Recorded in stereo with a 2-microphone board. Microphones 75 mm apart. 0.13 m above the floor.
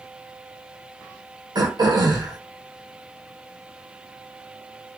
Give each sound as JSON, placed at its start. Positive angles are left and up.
{"t": 1.6, "sound": "throat clearing", "side_deg": -65, "distance_m": 2.0}